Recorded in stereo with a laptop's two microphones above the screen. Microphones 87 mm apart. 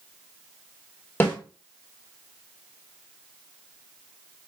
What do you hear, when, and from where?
1.2 s a snare drum: 25° left (ahead or behind), 1.6 m